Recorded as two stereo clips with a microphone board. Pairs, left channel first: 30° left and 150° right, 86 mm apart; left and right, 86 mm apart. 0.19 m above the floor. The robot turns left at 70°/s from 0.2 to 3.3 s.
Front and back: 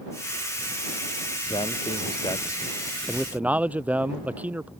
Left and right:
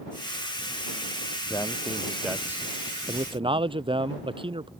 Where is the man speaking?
45° left; by 4.7 s 80° right.